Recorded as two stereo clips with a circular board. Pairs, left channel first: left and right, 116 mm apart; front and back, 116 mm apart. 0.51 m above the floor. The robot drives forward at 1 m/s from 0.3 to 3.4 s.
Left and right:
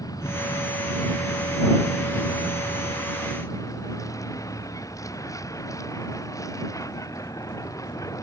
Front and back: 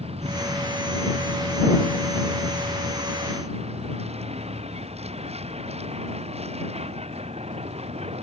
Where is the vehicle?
150° left.